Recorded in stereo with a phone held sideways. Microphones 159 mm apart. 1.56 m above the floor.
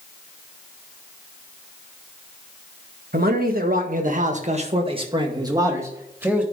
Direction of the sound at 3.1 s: 75° right (ahead or behind).